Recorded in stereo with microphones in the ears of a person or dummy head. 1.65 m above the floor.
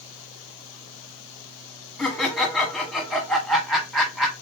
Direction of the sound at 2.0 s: Centre (ahead or behind).